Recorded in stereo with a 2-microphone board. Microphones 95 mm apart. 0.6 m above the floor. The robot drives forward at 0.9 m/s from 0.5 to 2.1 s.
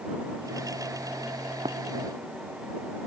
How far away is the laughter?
I don't hear laughter.